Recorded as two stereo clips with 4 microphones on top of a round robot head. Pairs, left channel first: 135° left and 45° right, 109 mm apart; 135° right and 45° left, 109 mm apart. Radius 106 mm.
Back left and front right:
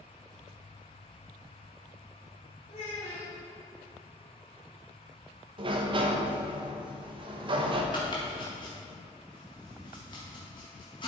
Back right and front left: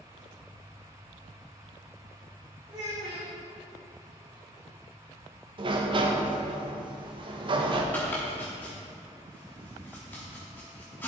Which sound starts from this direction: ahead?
A sliding door, at 5.6 s.